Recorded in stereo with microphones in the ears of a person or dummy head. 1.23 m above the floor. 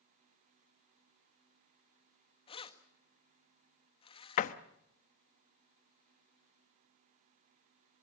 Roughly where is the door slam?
Left.